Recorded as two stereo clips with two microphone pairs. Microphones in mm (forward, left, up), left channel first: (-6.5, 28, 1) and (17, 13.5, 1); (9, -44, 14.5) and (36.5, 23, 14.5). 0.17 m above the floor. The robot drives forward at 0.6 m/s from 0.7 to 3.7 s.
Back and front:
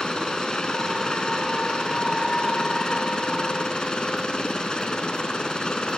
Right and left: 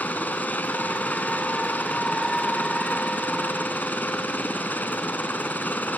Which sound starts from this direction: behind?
A helicopter, at 0.0 s.